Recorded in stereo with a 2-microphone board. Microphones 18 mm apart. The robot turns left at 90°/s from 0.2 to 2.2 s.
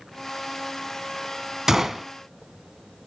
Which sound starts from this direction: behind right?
A gunshot, at 1.7 s.